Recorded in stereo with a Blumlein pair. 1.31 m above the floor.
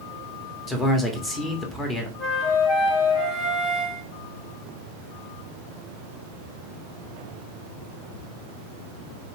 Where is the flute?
20° left, 0.9 m.